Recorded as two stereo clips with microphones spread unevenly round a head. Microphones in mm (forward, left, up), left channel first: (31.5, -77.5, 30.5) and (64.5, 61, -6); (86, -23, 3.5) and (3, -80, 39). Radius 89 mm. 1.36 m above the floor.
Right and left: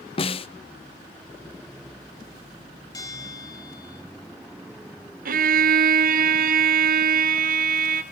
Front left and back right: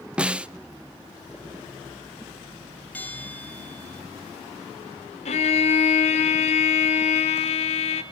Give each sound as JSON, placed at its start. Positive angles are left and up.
{"t": 0.2, "sound": "a snare drum", "azimuth_deg": -85, "distance_m": 0.6}
{"t": 2.9, "sound": "a bell", "azimuth_deg": -45, "distance_m": 4.0}
{"t": 5.2, "sound": "a violin", "azimuth_deg": 60, "distance_m": 2.5}